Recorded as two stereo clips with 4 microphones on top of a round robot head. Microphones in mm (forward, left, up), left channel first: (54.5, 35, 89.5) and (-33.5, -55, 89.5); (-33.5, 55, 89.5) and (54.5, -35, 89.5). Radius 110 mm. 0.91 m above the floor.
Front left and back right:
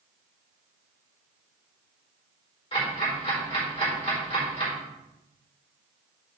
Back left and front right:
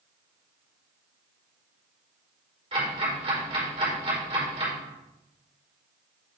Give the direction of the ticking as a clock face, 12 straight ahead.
12 o'clock.